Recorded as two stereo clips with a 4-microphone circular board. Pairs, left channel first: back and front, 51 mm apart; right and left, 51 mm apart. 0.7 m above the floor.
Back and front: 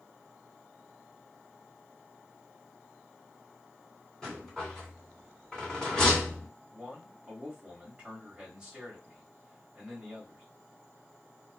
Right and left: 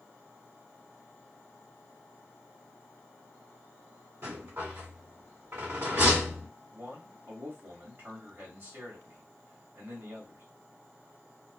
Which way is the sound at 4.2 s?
100° left.